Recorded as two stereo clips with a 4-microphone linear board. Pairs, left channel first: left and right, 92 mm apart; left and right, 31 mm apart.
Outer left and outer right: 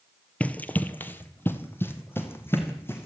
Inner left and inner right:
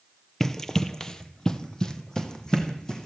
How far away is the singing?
No singing in this recording.